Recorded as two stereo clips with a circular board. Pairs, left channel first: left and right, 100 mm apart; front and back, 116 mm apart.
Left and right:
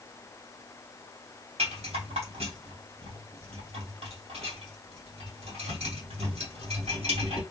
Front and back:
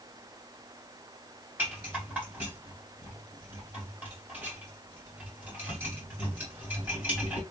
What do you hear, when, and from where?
1.6 s a rattle: 100° right, 2.5 m